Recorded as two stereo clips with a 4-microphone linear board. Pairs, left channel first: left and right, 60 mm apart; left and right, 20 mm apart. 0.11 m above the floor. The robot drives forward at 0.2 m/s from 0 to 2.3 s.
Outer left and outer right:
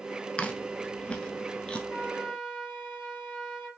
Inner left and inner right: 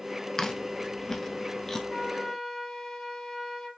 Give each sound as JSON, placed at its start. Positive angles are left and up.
{"t": 0.4, "sound": "chewing", "side_deg": 20, "distance_m": 0.6}
{"t": 1.9, "sound": "a flute", "side_deg": 40, "distance_m": 3.0}